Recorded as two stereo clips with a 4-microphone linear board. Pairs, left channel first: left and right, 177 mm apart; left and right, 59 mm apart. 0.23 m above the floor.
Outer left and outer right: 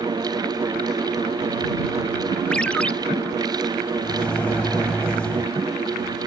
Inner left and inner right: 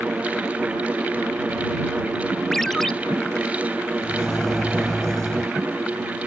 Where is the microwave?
5° left (ahead or behind).